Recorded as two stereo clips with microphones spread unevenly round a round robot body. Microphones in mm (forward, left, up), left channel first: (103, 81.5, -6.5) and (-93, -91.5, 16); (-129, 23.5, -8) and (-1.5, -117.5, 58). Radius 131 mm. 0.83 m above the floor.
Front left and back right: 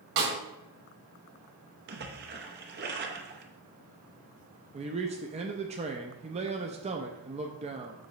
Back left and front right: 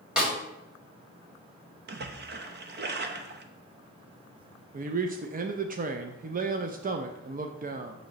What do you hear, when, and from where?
0.2 s a snare drum: 130° right, 2 m
1.9 s a splash: 90° right, 0.8 m
4.7 s a man speaking: 85° right, 0.6 m